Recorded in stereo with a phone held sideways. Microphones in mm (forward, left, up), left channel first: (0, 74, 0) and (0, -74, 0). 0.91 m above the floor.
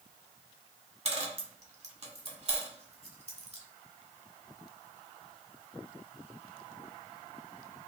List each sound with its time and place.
1.1 s a dropped coin: 45° right (ahead or behind), 0.7 m